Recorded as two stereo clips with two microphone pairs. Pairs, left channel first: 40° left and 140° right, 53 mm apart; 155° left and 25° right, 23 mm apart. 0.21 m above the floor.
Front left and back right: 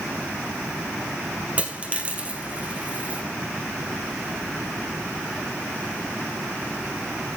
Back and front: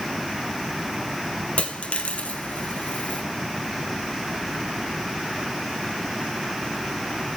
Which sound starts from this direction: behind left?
A dropped coin, at 1.6 s.